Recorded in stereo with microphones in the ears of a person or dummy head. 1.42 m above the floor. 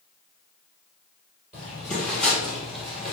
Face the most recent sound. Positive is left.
turn(degrees=-5)  # may be behind; listen again after turning